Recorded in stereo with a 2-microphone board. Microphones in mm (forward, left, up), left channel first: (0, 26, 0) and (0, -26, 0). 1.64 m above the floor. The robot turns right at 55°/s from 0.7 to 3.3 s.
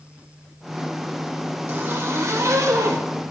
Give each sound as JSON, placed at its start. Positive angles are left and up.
{"t": 1.7, "sound": "a zipper", "azimuth_deg": -135, "distance_m": 1.3}